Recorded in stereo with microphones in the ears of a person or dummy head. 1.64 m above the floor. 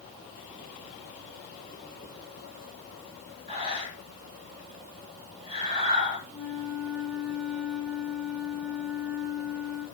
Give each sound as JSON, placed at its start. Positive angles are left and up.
{"t": 3.5, "sound": "breathing", "side_deg": -35, "distance_m": 9.0}
{"t": 6.3, "sound": "a flute", "side_deg": -30, "distance_m": 4.0}